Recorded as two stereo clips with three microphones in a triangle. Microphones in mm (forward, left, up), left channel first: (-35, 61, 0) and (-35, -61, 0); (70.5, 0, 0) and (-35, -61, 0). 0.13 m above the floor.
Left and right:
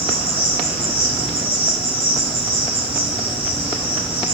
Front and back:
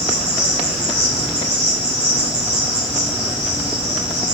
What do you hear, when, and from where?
0.0 s an insect: 150° right, 1.5 m